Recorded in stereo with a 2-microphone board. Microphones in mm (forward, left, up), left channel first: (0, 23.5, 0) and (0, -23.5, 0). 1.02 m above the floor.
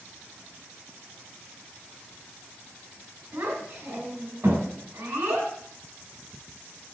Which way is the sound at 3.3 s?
55° right (ahead or behind).